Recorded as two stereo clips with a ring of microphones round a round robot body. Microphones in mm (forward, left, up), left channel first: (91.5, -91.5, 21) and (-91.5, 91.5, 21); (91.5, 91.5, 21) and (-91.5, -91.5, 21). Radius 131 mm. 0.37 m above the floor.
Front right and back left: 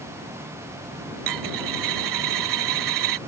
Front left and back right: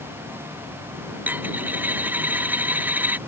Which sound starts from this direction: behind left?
A dropped coin, at 1.3 s.